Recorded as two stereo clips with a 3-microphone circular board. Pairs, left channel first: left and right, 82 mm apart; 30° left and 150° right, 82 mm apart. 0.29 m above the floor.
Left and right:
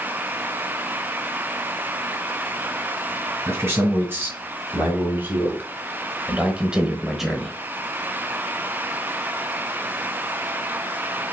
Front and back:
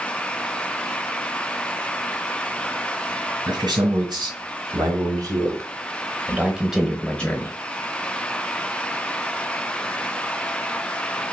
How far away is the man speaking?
About 2.5 m.